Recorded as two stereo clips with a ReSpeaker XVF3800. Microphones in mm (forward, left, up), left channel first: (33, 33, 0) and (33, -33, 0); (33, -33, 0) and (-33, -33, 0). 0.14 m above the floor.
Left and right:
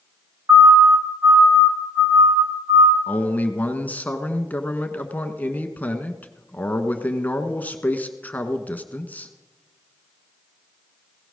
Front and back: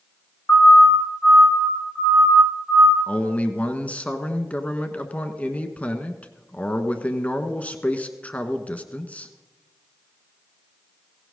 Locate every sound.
0.5 s a siren: 45° right, 2 m; by 3.0 s 90° right, 5 m
3.1 s a man speaking: 50° left, 1.3 m